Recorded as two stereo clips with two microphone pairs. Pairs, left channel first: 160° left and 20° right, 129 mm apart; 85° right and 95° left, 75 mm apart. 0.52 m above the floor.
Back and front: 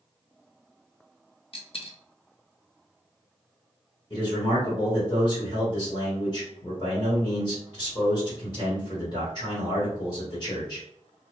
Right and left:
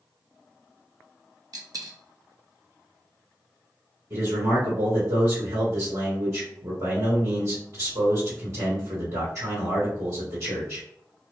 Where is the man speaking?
120° left, 1.9 m.